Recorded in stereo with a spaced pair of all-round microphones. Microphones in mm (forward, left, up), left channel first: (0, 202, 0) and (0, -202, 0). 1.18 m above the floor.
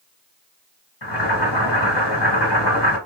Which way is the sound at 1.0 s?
80° left.